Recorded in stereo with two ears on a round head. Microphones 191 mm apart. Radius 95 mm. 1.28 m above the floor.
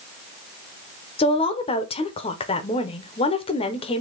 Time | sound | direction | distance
1.2 | a woman speaking | 25° left (ahead or behind) | 0.8 m